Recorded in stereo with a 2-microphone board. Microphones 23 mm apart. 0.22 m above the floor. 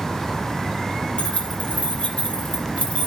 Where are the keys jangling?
80° left, 4.5 m; by 3.1 s 55° left (ahead or behind), 3.5 m.